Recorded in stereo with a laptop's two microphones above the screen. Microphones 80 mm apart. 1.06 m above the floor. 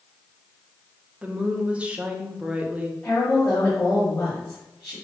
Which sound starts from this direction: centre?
A woman speaking, at 1.2 s.